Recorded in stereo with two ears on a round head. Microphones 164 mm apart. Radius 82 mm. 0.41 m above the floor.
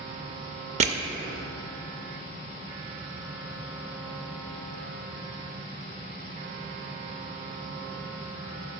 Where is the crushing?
35° right (ahead or behind), 0.7 m.